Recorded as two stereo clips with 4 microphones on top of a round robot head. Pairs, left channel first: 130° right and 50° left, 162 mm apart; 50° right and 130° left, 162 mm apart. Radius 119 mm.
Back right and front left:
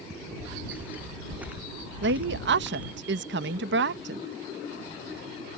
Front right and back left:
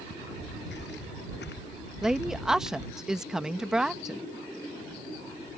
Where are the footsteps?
35° right.